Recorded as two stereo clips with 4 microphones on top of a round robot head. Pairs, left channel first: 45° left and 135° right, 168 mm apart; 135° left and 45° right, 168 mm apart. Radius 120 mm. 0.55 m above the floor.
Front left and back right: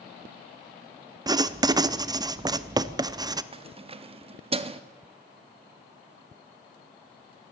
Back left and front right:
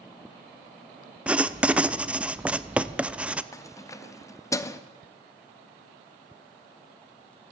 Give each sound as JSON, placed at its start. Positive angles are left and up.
{"t": 1.3, "sound": "writing", "azimuth_deg": -115, "distance_m": 0.6}
{"t": 3.5, "sound": "keys jangling", "azimuth_deg": -160, "distance_m": 0.8}